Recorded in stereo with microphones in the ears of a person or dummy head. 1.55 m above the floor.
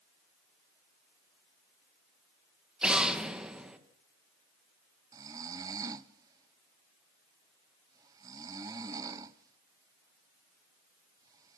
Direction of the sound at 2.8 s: 5° right (ahead or behind).